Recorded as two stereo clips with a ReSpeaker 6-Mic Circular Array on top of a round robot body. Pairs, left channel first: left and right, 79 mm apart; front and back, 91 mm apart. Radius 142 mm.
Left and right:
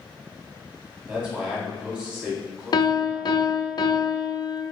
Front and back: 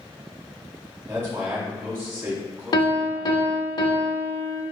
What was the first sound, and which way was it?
A man speaking, 145° right.